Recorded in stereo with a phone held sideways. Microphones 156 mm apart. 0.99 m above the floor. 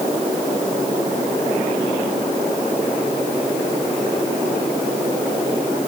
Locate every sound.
Only background noise.